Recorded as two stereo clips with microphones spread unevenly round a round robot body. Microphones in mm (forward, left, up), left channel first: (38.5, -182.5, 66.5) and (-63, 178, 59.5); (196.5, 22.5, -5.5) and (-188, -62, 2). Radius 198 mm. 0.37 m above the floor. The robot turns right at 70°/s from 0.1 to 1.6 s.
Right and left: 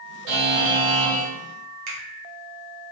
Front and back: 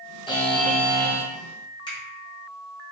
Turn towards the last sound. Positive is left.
turn(degrees=90)